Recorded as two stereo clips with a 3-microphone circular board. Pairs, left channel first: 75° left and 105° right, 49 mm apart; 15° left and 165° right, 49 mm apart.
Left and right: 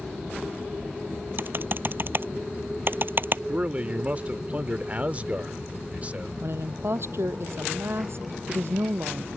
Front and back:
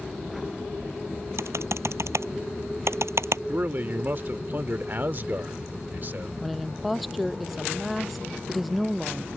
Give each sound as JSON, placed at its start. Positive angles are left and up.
{"t": 1.4, "sound": "typing on a keyboard", "azimuth_deg": -150}
{"t": 3.5, "sound": "a man speaking", "azimuth_deg": -150}
{"t": 6.4, "sound": "a woman speaking", "azimuth_deg": -75}